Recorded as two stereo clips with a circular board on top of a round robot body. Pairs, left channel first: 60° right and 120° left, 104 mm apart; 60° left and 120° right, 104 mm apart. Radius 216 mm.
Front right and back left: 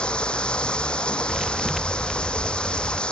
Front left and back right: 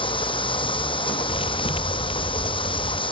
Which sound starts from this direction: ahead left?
A thud, at 1.3 s.